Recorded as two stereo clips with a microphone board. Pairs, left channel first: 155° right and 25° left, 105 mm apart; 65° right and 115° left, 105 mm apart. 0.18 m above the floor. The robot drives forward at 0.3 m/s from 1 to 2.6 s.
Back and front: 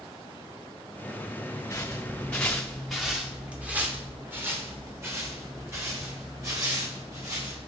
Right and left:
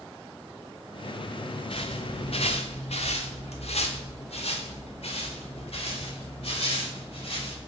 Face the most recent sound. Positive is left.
turn(degrees=-35)